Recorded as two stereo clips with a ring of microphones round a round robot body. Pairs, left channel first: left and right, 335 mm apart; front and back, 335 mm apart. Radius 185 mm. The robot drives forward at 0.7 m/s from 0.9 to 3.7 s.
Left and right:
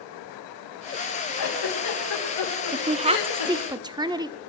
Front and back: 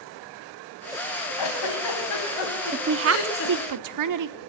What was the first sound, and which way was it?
A giggle, 40° left.